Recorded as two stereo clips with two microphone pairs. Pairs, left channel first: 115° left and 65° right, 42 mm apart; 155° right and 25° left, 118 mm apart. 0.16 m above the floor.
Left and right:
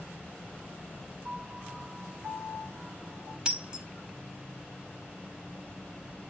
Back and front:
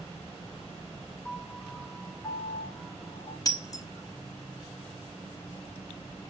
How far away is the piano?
About 0.8 m.